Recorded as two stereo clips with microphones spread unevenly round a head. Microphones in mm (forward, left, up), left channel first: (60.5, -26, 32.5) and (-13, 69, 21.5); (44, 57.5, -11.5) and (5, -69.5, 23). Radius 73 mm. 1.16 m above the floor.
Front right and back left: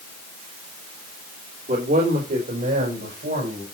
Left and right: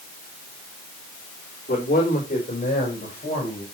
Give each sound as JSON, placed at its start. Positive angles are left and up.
{"t": 1.7, "sound": "a man speaking", "azimuth_deg": 115, "distance_m": 3.5}